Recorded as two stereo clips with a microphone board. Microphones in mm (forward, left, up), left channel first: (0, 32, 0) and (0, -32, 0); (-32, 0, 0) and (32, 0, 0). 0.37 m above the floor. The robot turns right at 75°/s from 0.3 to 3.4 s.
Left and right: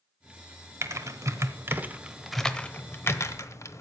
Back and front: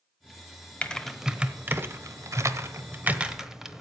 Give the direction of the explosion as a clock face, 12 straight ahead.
I don't hear an explosion.